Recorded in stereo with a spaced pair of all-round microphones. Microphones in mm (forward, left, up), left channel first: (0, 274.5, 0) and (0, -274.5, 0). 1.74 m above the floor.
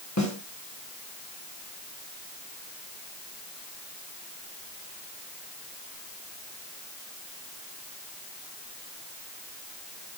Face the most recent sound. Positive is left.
turn(degrees=30)  # may be behind; listen again after turning